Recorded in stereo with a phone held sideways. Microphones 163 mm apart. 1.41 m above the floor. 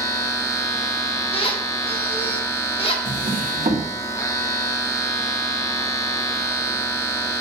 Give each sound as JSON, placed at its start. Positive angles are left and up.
{"t": 0.0, "sound": "a machine running", "side_deg": 20, "distance_m": 1.1}
{"t": 1.3, "sound": "a squeak", "side_deg": 35, "distance_m": 1.6}
{"t": 3.0, "sound": "a drawer", "side_deg": -60, "distance_m": 1.7}